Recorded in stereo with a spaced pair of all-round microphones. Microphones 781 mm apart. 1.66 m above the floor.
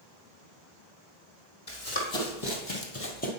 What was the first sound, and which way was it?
Running footsteps, 40° left (ahead or behind).